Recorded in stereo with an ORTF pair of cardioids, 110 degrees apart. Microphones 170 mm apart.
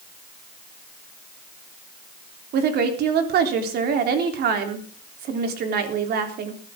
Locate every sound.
2.5 s a woman speaking: 70° right, 3.5 m